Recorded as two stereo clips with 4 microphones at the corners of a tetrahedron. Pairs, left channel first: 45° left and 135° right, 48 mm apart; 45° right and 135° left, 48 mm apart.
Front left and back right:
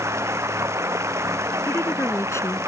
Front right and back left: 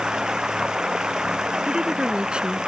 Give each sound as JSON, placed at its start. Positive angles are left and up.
{"t": 0.0, "sound": "running water", "azimuth_deg": -150}
{"t": 1.7, "sound": "a woman speaking", "azimuth_deg": 70}